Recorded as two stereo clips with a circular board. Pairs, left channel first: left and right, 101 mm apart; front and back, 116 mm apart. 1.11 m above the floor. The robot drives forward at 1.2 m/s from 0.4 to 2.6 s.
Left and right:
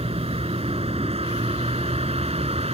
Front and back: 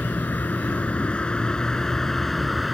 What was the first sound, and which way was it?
A vehicle, 75° right.